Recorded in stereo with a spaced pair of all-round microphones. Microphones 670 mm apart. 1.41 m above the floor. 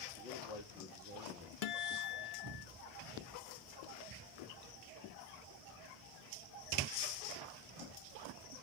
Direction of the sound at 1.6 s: 65° left (ahead or behind).